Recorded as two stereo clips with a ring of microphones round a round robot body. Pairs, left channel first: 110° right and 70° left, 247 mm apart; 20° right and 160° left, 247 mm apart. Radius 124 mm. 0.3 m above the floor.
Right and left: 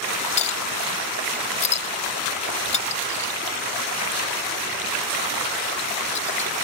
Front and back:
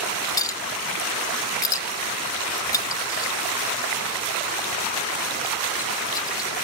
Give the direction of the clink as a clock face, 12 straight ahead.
3 o'clock.